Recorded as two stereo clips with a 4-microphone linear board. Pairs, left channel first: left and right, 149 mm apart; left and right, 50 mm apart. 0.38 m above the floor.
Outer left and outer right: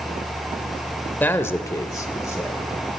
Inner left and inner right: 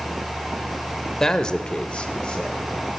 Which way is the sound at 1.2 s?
10° left (ahead or behind).